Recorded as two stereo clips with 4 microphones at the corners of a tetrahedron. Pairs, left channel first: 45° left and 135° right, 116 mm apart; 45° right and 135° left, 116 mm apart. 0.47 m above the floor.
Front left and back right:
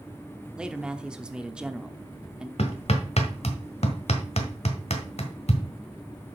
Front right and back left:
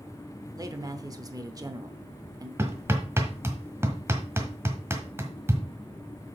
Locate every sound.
0.6 s a man speaking: 150° left, 0.8 m
2.6 s hammering: 65° left, 1.5 m